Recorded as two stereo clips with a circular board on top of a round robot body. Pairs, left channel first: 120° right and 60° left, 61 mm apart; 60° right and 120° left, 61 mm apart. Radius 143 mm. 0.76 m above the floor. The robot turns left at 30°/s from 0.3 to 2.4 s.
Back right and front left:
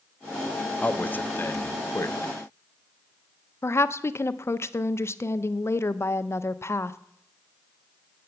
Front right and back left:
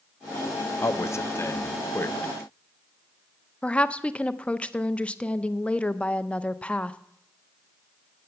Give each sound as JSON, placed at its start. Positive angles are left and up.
{"t": 0.8, "sound": "a man speaking", "azimuth_deg": -60, "distance_m": 0.7}
{"t": 3.6, "sound": "a woman speaking", "azimuth_deg": -125, "distance_m": 0.6}